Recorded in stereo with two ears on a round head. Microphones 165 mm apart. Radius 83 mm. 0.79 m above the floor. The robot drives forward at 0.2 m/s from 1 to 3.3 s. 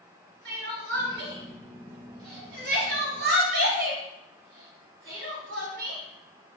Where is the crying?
60° right (ahead or behind), 1.3 m; by 6.0 s 50° right (ahead or behind), 1.5 m.